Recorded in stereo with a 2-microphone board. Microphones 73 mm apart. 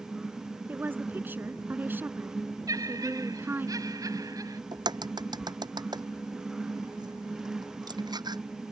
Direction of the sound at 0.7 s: 25° right (ahead or behind).